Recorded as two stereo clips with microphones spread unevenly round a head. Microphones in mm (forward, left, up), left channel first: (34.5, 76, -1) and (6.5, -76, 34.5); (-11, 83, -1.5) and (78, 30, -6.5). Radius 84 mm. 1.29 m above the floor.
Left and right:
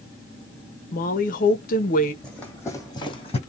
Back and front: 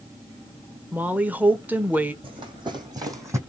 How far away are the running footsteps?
About 2 m.